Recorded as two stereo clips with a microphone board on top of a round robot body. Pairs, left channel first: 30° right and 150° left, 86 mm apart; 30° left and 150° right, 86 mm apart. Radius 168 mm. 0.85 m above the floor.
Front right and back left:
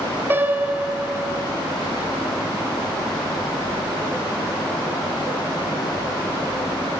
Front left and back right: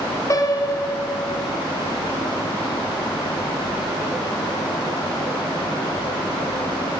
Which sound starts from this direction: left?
A piano, at 0.3 s.